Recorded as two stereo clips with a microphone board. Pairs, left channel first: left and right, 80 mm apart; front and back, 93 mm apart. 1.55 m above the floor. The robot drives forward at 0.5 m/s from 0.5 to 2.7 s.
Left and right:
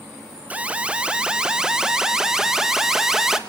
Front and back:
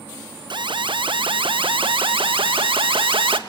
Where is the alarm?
160° right, 0.7 m; by 3.4 s 170° right, 1.8 m.